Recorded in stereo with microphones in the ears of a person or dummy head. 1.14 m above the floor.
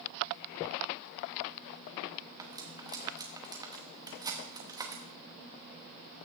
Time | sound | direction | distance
2.4 | cutlery clinking | 25° right (ahead or behind) | 0.9 m